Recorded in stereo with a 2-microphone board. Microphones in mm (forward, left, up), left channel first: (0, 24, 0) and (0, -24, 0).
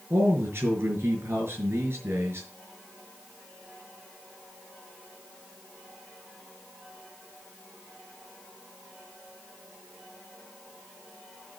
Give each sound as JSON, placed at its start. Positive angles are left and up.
{"t": 0.1, "sound": "a man speaking", "side_deg": -60, "distance_m": 4.5}